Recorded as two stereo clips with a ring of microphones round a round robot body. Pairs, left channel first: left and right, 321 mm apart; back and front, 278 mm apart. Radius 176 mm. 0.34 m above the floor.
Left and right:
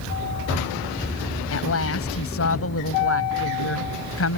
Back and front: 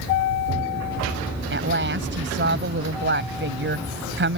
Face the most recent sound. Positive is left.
turn(degrees=45)